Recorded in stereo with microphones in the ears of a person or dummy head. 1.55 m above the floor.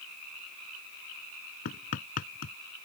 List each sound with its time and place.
1.6 s hammering: 45° left (ahead or behind)